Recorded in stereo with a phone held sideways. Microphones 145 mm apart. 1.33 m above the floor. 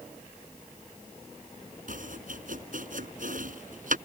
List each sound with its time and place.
1.9 s chopping: 65° right (ahead or behind)